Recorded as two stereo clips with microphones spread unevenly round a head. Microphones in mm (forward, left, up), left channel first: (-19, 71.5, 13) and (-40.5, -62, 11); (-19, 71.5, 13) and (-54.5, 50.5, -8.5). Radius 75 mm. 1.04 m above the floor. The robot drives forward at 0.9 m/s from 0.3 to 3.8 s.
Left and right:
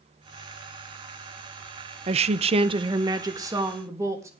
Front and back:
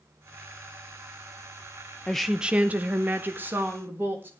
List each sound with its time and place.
2.1 s a woman speaking: 70° right, 0.5 m; by 4.3 s 165° right, 1.5 m